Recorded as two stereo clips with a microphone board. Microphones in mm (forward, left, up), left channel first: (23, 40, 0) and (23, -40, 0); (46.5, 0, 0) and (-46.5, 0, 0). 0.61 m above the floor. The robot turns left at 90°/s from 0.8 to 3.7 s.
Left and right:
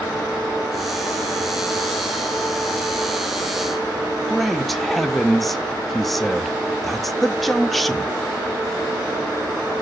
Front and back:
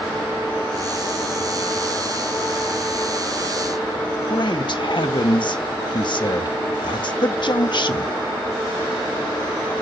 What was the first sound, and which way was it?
A man speaking, 5° left.